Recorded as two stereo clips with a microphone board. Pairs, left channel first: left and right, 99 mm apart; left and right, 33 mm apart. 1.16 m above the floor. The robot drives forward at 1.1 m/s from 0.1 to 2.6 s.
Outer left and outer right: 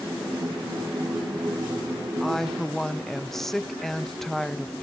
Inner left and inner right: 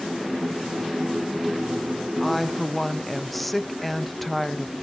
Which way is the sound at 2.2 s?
Centre (ahead or behind).